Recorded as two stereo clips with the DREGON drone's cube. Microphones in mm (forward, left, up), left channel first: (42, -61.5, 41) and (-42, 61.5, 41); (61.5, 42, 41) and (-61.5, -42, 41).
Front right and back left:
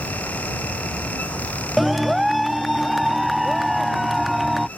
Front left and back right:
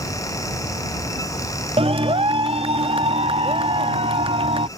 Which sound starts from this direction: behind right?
A clap, at 1.8 s.